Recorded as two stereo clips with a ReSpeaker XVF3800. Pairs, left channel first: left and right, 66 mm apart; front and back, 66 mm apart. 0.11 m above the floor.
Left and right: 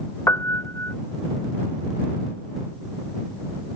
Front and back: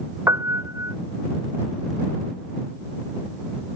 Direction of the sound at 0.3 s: 135° left.